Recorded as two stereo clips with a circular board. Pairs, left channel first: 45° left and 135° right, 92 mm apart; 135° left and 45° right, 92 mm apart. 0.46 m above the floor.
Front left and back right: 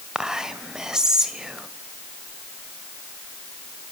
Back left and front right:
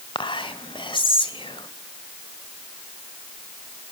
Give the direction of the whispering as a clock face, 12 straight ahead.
7 o'clock.